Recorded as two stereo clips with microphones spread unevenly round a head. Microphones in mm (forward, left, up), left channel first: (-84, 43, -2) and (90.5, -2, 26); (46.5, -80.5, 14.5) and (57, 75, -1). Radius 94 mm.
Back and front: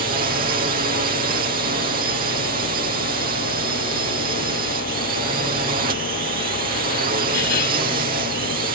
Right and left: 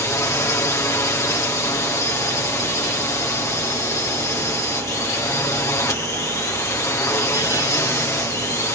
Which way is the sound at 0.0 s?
25° right.